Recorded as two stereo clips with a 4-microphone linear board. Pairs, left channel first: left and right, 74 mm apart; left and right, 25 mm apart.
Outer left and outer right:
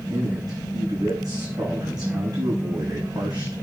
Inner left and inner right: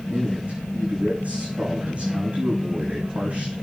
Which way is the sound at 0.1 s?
65° right (ahead or behind).